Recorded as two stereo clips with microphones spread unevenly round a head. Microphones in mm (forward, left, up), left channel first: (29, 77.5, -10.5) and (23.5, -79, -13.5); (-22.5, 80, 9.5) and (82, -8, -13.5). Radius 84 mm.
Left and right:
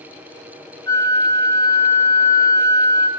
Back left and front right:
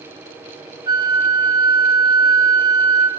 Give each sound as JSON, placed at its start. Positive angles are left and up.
{"t": 0.9, "sound": "a flute", "azimuth_deg": 20, "distance_m": 2.5}